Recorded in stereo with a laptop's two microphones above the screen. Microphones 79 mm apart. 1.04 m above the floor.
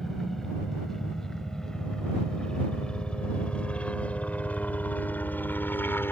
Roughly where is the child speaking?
I don't hear a child speaking.